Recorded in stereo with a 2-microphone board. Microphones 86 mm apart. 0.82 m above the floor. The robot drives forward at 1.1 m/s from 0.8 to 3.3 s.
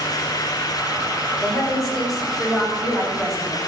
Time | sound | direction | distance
1.4 | a woman speaking | centre (ahead or behind) | 3 m